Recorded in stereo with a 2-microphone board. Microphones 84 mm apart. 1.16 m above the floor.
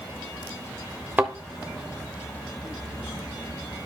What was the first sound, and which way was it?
A thud, 20° right (ahead or behind).